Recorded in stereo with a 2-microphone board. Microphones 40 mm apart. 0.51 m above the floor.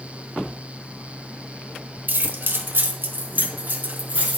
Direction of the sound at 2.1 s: 55° right (ahead or behind).